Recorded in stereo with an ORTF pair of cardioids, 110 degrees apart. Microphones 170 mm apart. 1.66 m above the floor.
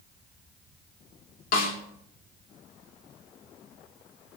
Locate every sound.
1.5 s a snare drum: 60° left, 2.5 m